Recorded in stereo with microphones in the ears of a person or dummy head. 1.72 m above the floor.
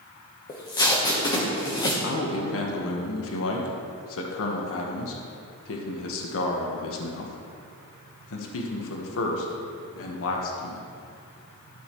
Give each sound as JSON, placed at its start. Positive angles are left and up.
{"t": 0.5, "sound": "tape being pulled", "side_deg": 20, "distance_m": 1.0}
{"t": 2.0, "sound": "a man speaking", "side_deg": 75, "distance_m": 1.2}